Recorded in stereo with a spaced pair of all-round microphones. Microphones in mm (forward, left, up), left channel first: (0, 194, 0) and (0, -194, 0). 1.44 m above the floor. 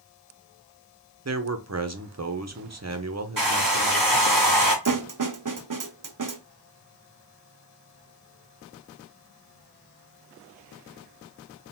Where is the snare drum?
50° right (ahead or behind), 0.5 m.